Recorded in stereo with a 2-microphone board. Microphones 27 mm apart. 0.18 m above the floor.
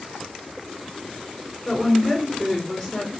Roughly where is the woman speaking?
Centre.